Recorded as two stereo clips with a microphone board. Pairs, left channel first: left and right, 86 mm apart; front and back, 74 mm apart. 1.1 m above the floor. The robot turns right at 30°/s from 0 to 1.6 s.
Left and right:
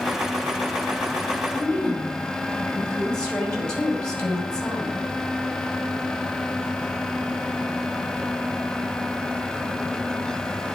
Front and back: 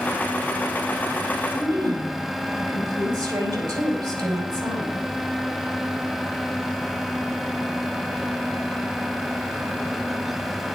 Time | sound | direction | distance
1.5 | a woman speaking | 165° left | 5 m